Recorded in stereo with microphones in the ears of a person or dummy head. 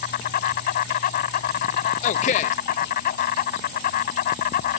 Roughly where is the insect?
Left.